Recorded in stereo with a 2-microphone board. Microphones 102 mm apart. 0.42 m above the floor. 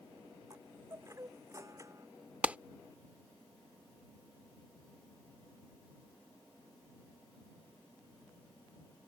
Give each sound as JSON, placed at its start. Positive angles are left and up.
{"t": 0.5, "sound": "a chime", "side_deg": -30}
{"t": 2.4, "sound": "a clap", "side_deg": -15}